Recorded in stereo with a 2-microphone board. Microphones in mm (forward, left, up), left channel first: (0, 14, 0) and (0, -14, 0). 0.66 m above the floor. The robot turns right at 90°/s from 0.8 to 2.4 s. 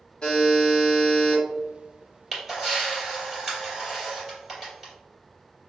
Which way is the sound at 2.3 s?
Centre (ahead or behind).